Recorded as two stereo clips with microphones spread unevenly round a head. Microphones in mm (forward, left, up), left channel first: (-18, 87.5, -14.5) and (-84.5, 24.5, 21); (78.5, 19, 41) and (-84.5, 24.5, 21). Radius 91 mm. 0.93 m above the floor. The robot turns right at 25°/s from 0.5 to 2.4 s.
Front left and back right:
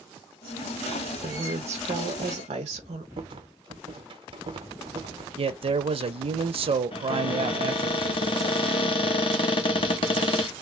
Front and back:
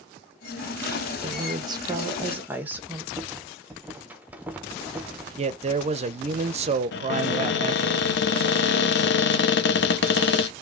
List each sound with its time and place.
1.2 s a woman speaking: 140° right, 0.9 m; by 3.1 s 110° right, 0.9 m
3.2 s a rattle: 120° right, 0.7 m
5.4 s a man speaking: 155° right, 0.6 m
6.9 s a cupboard door: 15° left, 0.6 m